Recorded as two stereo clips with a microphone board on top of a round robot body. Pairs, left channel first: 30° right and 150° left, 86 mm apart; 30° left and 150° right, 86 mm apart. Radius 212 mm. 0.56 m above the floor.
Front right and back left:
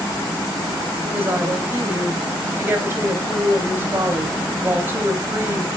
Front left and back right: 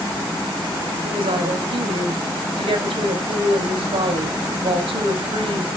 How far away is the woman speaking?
About 4 m.